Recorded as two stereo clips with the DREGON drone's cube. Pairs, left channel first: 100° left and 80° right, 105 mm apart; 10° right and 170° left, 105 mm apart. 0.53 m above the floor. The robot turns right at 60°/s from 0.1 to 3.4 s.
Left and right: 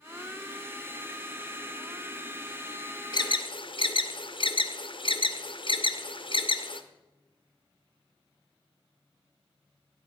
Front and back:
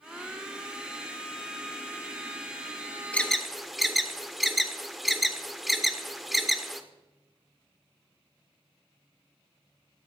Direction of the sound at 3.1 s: 65° left.